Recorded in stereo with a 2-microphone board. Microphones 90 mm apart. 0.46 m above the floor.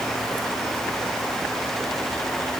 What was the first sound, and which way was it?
Only background noise.